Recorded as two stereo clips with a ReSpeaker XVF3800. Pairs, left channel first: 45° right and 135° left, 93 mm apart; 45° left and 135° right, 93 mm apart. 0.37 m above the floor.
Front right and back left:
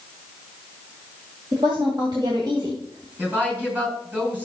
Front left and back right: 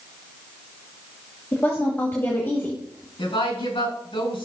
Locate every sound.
1.5 s a woman speaking: 110° left, 2.0 m
3.2 s a woman speaking: 65° left, 4.5 m